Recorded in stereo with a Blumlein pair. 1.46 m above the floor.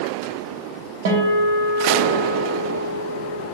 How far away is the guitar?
About 0.7 m.